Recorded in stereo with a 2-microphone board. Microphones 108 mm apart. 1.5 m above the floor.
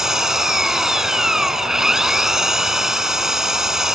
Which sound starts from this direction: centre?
An engine running, at 0.0 s.